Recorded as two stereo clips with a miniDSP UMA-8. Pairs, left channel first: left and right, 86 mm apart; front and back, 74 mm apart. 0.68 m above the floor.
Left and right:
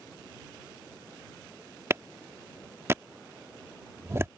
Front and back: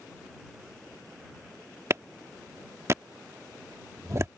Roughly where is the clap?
Behind right.